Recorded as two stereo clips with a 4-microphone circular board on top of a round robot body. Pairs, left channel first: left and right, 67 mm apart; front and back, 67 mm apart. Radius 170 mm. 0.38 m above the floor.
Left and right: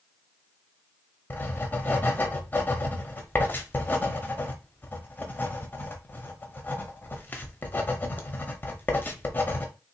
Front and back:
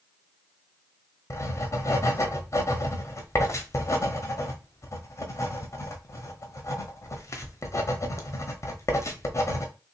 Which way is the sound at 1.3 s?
30° left.